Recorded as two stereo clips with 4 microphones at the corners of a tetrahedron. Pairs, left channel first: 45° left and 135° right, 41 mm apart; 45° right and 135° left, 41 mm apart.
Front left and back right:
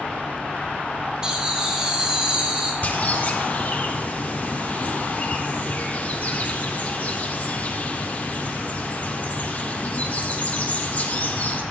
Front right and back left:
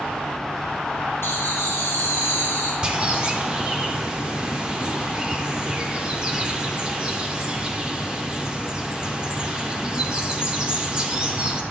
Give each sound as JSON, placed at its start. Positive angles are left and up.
{"t": 1.2, "sound": "laughter", "azimuth_deg": -65, "distance_m": 2.5}
{"t": 2.8, "sound": "a bird", "azimuth_deg": 75, "distance_m": 1.2}